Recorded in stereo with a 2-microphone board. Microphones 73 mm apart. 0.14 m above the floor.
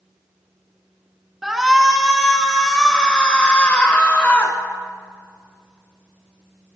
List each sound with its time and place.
1.4 s a shout: centre (ahead or behind), 1.7 m; by 6.8 s 30° left (ahead or behind), 2.5 m